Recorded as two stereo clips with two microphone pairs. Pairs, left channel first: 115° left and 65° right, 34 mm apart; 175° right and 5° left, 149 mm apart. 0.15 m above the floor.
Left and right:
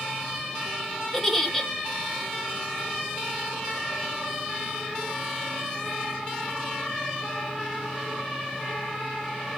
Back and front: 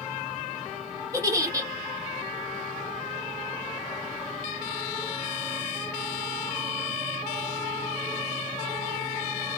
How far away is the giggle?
About 0.8 m.